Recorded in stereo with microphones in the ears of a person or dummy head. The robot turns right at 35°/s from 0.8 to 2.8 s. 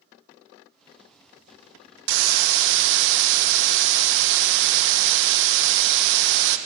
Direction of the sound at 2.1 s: 70° right (ahead or behind).